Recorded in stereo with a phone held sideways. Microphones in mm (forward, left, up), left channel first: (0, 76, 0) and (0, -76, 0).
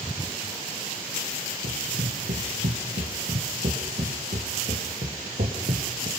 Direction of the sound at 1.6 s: 75° right (ahead or behind).